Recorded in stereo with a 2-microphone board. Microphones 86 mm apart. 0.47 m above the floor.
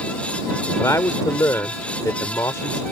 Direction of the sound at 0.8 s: 35° left (ahead or behind).